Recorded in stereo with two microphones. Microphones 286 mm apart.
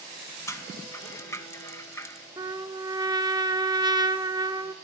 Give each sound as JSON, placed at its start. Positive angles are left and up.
{"t": 0.5, "sound": "a rattle", "side_deg": 10, "distance_m": 0.6}
{"t": 2.4, "sound": "a trumpet", "side_deg": -15, "distance_m": 0.6}